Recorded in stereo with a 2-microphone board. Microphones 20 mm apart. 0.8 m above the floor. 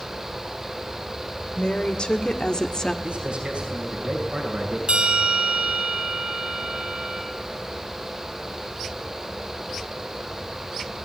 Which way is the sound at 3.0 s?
60° right (ahead or behind).